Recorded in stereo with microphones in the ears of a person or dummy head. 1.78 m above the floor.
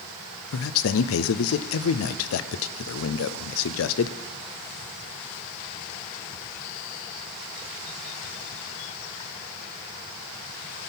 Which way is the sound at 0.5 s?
70° left (ahead or behind).